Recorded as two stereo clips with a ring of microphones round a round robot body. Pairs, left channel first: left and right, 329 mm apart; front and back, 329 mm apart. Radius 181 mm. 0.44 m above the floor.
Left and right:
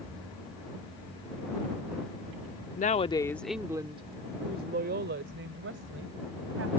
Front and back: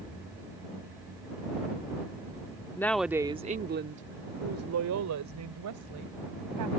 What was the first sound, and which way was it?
A woman speaking, 70° left.